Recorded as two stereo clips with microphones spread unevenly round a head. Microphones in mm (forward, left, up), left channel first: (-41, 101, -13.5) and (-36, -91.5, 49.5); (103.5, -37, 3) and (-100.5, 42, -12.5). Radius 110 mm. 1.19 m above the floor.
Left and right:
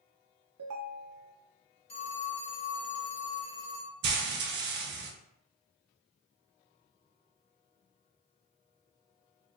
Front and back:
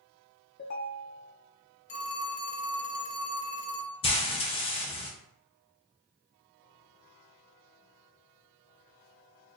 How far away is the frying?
About 0.5 m.